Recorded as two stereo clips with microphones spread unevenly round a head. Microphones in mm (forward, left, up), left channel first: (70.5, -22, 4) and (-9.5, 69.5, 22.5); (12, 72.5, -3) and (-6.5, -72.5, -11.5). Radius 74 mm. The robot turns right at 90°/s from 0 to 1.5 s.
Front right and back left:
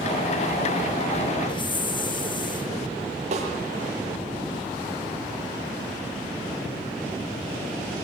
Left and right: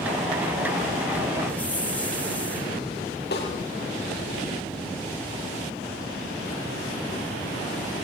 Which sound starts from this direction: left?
A snare drum, at 3.3 s.